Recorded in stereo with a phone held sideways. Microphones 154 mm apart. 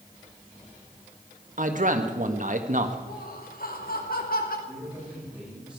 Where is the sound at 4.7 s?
5° right (ahead or behind), 9 m.